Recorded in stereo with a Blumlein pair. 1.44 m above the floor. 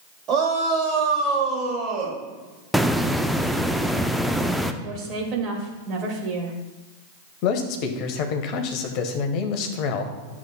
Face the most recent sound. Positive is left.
turn(degrees=40)